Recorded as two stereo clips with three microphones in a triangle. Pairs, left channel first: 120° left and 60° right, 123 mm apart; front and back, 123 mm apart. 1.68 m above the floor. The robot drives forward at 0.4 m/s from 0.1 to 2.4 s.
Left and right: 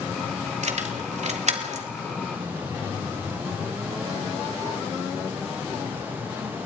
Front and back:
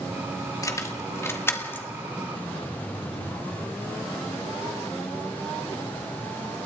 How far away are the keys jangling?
About 2.5 m.